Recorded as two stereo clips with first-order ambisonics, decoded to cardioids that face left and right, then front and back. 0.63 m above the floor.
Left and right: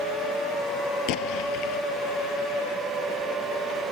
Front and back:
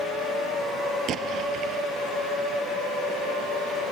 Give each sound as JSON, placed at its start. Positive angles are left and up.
{"t": 1.1, "sound": "an explosion", "azimuth_deg": 125}